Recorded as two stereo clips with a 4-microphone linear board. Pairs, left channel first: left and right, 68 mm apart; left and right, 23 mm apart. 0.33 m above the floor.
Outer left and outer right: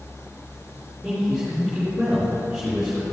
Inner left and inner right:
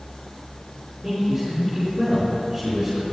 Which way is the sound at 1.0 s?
5° right (ahead or behind).